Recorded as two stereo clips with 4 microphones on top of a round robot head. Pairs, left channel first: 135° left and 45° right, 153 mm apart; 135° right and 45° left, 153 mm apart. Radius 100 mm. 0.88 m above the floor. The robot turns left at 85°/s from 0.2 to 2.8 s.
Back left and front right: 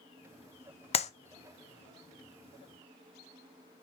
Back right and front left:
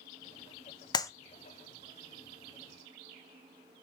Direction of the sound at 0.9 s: 170° left.